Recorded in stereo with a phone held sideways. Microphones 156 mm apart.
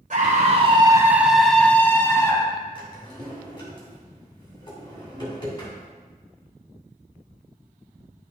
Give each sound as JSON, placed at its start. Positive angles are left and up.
{"t": 0.1, "sound": "a scream", "side_deg": -55, "distance_m": 0.6}
{"t": 2.8, "sound": "a drawer", "side_deg": 30, "distance_m": 2.0}